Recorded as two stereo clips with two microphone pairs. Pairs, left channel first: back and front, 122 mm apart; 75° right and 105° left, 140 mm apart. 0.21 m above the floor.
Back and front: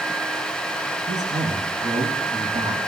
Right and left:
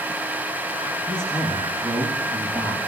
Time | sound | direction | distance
1.1 | a man speaking | 5° left | 9 m